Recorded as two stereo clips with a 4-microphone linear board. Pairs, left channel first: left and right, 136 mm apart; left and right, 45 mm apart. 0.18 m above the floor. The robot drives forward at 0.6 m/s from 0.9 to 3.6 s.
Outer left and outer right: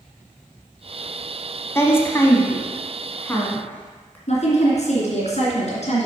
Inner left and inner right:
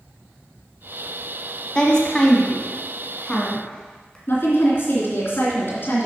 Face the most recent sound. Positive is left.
turn(degrees=55)  # may be behind; listen again after turning